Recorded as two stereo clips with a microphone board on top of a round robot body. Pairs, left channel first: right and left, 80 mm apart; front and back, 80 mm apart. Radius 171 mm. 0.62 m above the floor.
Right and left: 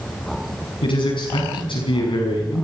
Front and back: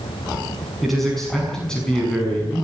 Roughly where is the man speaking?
Right.